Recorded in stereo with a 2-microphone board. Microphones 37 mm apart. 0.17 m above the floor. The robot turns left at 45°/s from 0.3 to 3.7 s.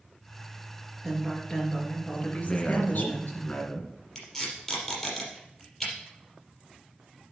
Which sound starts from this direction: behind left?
A man speaking, at 2.4 s.